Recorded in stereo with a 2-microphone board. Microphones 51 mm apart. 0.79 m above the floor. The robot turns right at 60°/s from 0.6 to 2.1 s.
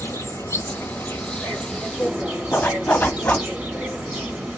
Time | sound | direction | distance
0.0 | an insect | 105° left | 1.8 m
2.5 | a zipper | 40° left (ahead or behind) | 1.3 m